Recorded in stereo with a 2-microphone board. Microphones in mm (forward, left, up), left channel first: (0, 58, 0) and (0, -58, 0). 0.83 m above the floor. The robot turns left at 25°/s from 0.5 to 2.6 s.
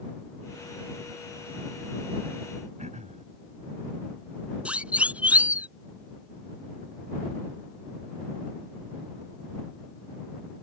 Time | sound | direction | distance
2.8 | throat clearing | 80° right | ?
4.7 | a siren | 10° right (ahead or behind) | ?